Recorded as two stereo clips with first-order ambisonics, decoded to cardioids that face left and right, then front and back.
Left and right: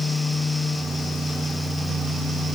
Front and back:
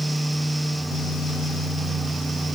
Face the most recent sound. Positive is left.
No sound to turn to.